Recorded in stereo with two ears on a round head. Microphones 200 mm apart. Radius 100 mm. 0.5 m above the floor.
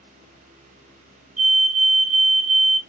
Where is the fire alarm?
50° right (ahead or behind), 2.5 m.